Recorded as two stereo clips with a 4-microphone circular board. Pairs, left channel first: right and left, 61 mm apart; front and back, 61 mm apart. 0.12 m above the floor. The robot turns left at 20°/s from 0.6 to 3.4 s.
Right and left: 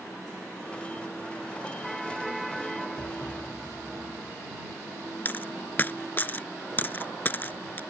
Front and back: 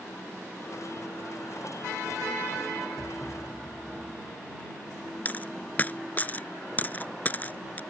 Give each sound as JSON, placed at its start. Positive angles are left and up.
{"t": 3.0, "sound": "a thud", "azimuth_deg": 40}
{"t": 5.2, "sound": "a dropped coin", "azimuth_deg": -45}